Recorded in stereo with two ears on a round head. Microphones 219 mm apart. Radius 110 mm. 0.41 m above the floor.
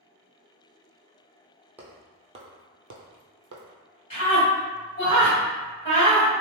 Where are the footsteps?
5° right (ahead or behind), 0.8 m; by 3.6 s 60° right (ahead or behind), 0.8 m.